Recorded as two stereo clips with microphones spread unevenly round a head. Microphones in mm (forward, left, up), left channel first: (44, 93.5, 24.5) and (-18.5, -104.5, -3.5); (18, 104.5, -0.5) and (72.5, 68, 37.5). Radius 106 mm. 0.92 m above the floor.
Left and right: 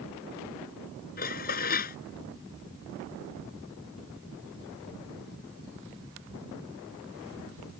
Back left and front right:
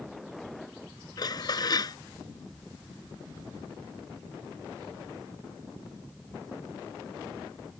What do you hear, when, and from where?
1.2 s dishes clattering: 125° left